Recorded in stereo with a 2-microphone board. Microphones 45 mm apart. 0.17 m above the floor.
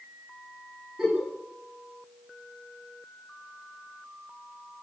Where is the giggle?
10° right (ahead or behind), 8.5 m.